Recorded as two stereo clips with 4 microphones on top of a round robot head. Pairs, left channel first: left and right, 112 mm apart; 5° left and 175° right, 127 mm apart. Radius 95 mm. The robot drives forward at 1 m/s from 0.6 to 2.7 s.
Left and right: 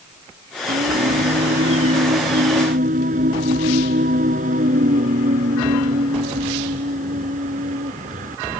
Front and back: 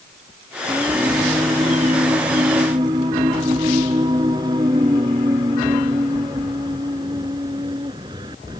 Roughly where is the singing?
Right.